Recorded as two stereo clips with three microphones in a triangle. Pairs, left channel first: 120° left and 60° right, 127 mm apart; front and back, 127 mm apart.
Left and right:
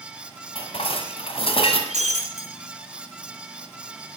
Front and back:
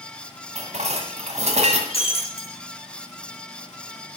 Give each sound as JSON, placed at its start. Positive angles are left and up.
{"t": 0.6, "sound": "dishes clattering", "azimuth_deg": 160, "distance_m": 1.8}
{"t": 1.9, "sound": "breaking glass", "azimuth_deg": -40, "distance_m": 2.5}